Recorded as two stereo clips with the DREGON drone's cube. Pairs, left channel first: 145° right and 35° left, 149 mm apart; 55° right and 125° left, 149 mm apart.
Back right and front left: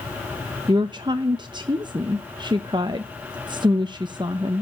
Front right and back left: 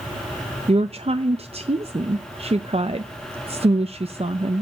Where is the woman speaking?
90° left, 0.6 m.